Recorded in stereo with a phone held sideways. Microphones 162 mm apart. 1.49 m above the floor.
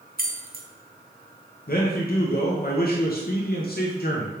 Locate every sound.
0.2 s keys jangling: 60° right (ahead or behind), 0.6 m
1.7 s a man speaking: 65° left (ahead or behind), 0.6 m